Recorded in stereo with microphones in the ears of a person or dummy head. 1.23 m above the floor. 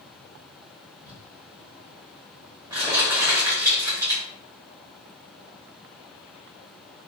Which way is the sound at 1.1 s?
20° right (ahead or behind).